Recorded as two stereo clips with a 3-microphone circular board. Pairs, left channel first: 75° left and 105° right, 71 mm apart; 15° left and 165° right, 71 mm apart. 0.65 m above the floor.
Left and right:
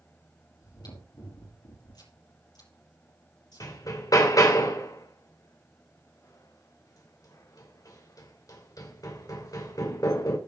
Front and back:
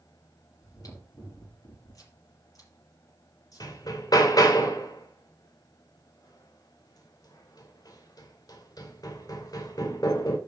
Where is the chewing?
50° left, 5.5 m.